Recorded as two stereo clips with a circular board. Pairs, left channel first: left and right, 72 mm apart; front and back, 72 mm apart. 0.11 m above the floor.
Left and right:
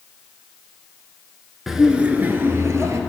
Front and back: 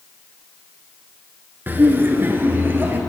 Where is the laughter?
175° right, 1.2 m; by 3.0 s 120° right, 1.8 m.